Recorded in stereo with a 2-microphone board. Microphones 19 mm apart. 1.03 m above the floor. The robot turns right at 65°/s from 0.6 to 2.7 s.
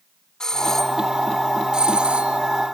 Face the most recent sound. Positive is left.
turn(degrees=-75)